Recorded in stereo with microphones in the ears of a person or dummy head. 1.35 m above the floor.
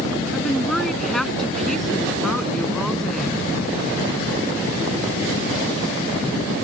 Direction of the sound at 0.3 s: 5° left (ahead or behind).